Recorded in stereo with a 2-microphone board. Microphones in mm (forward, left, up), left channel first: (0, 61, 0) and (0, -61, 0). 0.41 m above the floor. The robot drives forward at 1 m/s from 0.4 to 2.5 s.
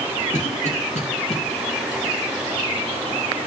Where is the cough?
70° left (ahead or behind), 4 m; by 1.4 s 60° left (ahead or behind), 4 m.